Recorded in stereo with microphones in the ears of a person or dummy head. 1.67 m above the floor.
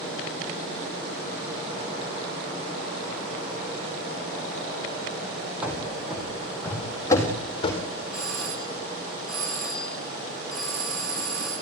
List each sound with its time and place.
5.6 s running footsteps: 5° right (ahead or behind), 4 m; by 7.8 s 35° left (ahead or behind), 3.5 m
8.1 s a doorbell: centre (ahead or behind), 9.5 m